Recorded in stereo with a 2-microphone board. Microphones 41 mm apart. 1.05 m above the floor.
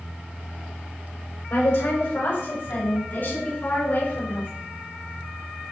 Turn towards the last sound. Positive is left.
turn(degrees=50)  # may be behind; listen again after turning